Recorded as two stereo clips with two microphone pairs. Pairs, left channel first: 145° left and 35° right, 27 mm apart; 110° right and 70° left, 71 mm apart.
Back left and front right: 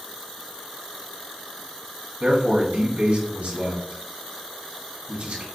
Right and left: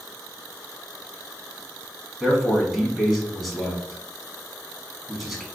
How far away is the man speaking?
About 1.6 m.